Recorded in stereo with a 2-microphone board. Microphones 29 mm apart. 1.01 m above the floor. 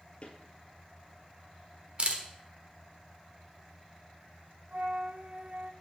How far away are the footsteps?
About 1.3 m.